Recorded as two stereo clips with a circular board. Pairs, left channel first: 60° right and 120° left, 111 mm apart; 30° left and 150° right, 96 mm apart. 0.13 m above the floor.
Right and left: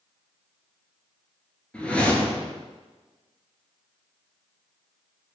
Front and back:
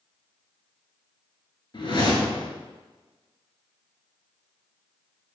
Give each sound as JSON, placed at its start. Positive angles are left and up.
{"t": 1.7, "sound": "a whoosh", "azimuth_deg": 20, "distance_m": 0.8}